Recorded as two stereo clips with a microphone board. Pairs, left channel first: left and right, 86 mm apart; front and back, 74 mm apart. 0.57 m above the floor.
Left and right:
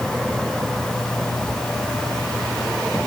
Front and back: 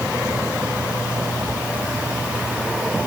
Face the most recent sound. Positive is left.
No sound to turn to.